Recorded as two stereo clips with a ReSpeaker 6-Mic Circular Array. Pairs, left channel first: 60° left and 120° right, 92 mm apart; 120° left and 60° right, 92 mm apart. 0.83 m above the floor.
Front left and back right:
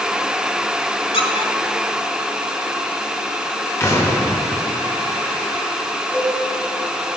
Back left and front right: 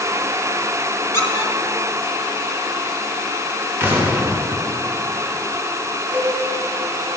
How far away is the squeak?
About 1.1 m.